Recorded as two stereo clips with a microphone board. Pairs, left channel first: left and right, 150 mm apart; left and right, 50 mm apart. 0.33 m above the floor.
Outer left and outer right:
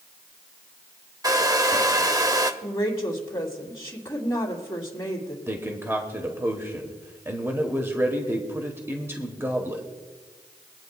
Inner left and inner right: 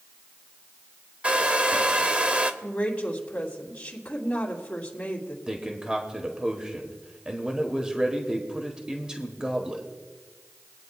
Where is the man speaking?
15° right (ahead or behind), 1.3 m.